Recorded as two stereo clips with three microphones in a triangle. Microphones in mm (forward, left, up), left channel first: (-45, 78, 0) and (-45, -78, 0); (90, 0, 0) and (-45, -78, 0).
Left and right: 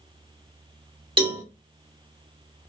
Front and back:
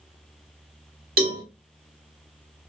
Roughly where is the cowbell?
Behind right.